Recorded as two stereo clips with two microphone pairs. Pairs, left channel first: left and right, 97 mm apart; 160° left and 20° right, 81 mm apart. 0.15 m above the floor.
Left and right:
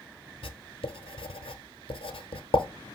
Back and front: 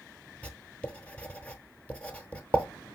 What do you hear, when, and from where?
0.4 s writing: 85° left, 0.6 m